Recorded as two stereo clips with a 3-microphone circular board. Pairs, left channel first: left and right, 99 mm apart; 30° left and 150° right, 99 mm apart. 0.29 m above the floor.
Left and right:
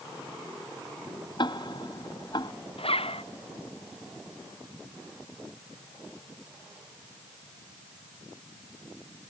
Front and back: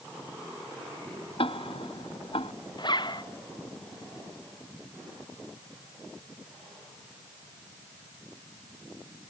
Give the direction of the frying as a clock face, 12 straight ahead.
No frying in this recording.